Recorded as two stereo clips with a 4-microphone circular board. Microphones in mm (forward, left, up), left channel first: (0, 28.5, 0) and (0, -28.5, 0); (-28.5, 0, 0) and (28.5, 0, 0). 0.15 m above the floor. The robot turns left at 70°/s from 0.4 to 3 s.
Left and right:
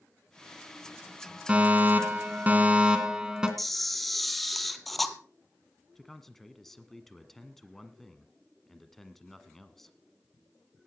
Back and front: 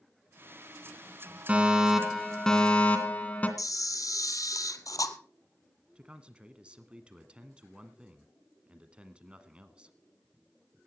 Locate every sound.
1.5 s a fire alarm: 45° right, 2 m; by 3.5 s 150° right, 2 m
3.6 s a camera shutter: straight behind, 1.2 m
6.0 s a man speaking: 15° left, 1.3 m